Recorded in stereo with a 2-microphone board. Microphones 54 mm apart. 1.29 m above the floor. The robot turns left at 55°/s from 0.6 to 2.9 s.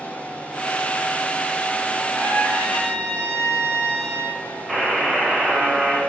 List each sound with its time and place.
2.1 s a trumpet: 150° left, 2.5 m; by 4.4 s 105° left, 2.5 m
4.7 s a buzzer: centre (ahead or behind), 1.4 m